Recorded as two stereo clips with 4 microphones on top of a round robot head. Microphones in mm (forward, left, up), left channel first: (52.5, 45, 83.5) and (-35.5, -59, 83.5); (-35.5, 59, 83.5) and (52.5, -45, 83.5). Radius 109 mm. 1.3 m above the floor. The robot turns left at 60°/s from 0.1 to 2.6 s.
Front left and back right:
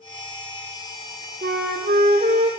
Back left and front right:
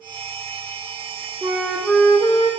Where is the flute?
115° right, 1.2 m; by 2.5 s 175° left, 1.2 m.